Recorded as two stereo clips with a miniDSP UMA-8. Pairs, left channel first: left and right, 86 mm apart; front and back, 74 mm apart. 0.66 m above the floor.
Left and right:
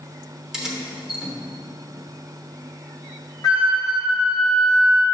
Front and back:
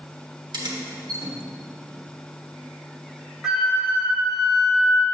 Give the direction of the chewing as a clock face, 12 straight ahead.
I don't hear chewing.